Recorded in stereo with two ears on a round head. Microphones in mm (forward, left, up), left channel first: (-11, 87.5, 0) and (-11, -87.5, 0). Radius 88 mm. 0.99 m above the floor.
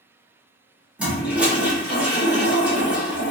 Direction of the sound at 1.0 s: 10° right (ahead or behind).